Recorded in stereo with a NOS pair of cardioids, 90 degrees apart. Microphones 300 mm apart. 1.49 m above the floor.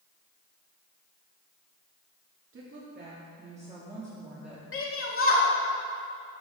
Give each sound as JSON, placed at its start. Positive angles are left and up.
{"t": 2.5, "sound": "a woman speaking", "azimuth_deg": -45, "distance_m": 2.5}
{"t": 4.7, "sound": "a shout", "azimuth_deg": 45, "distance_m": 2.5}